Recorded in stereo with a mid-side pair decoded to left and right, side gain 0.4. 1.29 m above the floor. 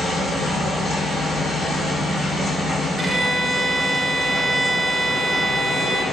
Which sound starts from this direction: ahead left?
A machine running, at 0.0 s.